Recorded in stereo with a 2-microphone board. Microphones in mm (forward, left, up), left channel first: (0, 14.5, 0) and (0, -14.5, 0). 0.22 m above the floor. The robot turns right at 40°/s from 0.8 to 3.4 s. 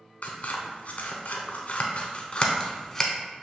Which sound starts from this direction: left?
Scissors, at 0.2 s.